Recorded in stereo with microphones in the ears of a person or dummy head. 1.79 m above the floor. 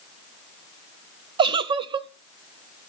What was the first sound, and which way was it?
A giggle, 30° right (ahead or behind).